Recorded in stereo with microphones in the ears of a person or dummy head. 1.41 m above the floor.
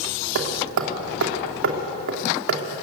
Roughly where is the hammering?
Right.